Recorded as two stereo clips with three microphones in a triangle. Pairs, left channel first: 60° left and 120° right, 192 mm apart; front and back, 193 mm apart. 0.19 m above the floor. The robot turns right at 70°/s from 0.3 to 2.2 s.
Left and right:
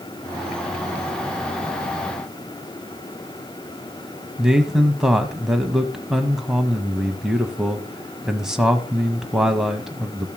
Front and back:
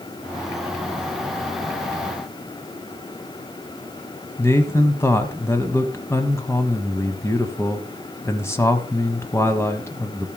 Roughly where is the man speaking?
Ahead right.